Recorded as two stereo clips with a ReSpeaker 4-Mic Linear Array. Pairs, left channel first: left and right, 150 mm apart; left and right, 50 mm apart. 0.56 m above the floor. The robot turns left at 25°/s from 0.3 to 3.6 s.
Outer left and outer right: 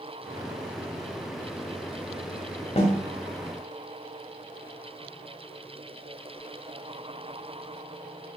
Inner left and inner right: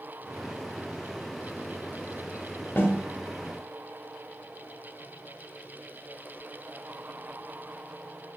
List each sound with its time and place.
2.8 s a snare drum: 45° left (ahead or behind), 0.9 m